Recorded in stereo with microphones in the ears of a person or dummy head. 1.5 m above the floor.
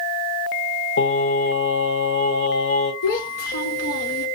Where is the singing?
65° left (ahead or behind), 3 m.